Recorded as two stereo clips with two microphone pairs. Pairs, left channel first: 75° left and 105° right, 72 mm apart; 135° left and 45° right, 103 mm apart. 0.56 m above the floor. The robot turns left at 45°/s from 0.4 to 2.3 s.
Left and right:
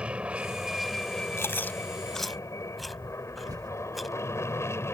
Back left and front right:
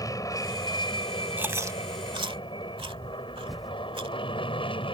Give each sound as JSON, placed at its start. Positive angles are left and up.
{"t": 0.0, "sound": "an aircraft", "azimuth_deg": 180}
{"t": 1.4, "sound": "chewing", "azimuth_deg": 25}
{"t": 3.5, "sound": "typing on a keyboard", "azimuth_deg": -135}